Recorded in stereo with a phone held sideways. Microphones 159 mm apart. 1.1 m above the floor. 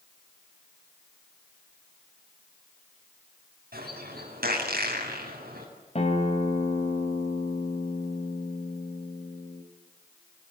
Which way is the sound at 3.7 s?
75° right (ahead or behind).